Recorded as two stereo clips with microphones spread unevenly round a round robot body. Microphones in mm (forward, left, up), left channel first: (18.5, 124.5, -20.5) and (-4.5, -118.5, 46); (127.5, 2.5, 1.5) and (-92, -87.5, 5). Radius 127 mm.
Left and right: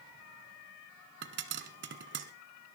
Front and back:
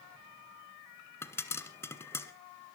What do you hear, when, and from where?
1.2 s a pop: 55° right, 1.3 m